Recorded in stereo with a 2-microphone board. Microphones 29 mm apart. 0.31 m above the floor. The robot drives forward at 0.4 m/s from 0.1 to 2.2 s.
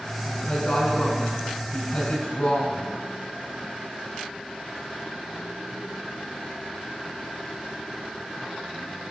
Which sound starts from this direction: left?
A woman speaking, at 0.2 s.